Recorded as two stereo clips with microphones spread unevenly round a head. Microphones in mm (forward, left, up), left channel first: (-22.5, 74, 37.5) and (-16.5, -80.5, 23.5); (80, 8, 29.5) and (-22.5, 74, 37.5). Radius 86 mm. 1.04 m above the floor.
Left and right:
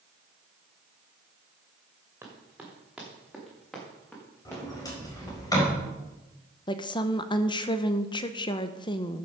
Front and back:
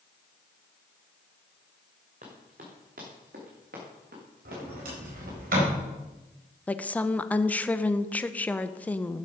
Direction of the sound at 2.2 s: 165° right.